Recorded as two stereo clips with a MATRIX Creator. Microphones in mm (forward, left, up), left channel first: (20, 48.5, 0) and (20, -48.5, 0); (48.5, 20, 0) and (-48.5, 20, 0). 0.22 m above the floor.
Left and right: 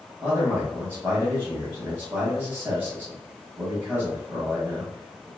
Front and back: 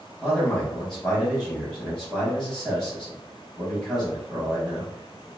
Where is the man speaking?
85° right, 1.0 m.